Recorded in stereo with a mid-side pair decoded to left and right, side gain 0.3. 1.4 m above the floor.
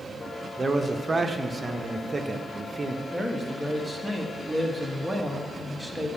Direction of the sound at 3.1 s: Straight ahead.